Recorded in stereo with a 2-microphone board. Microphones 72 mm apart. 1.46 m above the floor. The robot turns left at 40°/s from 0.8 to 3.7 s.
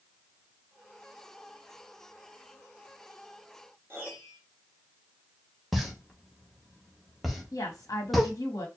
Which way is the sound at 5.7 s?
Centre (ahead or behind).